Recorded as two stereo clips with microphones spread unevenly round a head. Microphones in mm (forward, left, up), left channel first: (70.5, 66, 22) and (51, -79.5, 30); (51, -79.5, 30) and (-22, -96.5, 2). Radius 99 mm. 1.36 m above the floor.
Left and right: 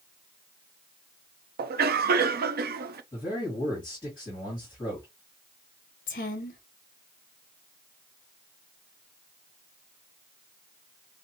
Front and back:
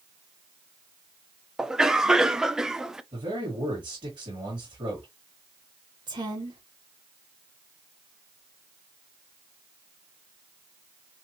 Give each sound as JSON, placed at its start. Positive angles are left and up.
{"t": 1.6, "sound": "a cough", "azimuth_deg": -90, "distance_m": 0.7}
{"t": 3.1, "sound": "a man speaking", "azimuth_deg": 150, "distance_m": 2.0}
{"t": 6.1, "sound": "a woman speaking", "azimuth_deg": 130, "distance_m": 0.8}